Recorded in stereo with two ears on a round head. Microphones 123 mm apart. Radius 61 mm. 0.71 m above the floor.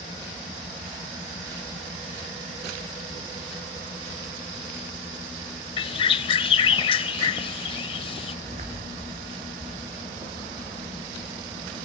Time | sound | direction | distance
5.8 | a bird | 40° left (ahead or behind) | 0.6 m
8.4 | footsteps | 50° right (ahead or behind) | 2.5 m